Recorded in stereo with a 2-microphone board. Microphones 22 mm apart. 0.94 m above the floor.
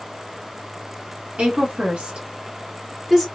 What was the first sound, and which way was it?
A woman speaking, 60° right (ahead or behind).